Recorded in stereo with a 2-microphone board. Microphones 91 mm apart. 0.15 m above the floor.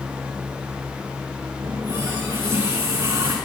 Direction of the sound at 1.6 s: 35° right (ahead or behind).